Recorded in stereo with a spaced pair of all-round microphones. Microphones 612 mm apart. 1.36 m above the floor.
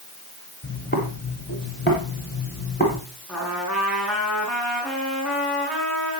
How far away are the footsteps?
About 7 m.